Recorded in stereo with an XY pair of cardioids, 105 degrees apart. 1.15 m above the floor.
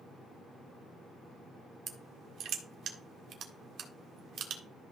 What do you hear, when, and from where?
1.9 s crushing: 70° right, 1.6 m